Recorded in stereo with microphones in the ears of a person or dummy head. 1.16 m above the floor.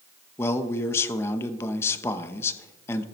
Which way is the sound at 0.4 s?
15° left (ahead or behind).